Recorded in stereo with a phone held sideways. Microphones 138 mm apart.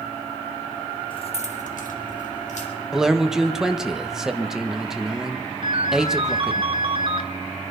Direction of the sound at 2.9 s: 5° right (ahead or behind).